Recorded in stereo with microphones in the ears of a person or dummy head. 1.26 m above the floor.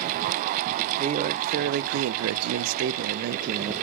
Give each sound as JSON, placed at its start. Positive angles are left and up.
{"t": 1.0, "sound": "a man speaking", "side_deg": -30, "distance_m": 1.0}